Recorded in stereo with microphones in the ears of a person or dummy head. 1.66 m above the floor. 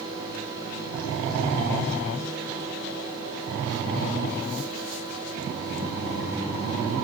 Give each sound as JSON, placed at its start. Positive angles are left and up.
{"t": 0.0, "sound": "a fan", "side_deg": -80, "distance_m": 5.5}